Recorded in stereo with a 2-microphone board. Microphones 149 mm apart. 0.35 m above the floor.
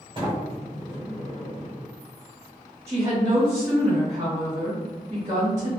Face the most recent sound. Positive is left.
turn(degrees=-20)  # may be behind; listen again after turning